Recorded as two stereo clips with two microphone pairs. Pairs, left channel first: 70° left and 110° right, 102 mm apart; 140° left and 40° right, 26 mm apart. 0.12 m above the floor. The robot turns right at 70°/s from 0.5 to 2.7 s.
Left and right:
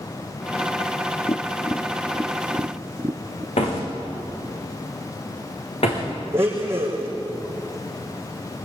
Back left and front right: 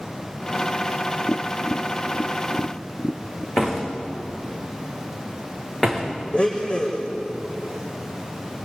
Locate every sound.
1.3 s tapping: 100° left, 0.9 m; by 3.5 s 160° right, 0.9 m
3.6 s a door slam: 60° left, 6 m
6.3 s a blender: 175° right, 5.5 m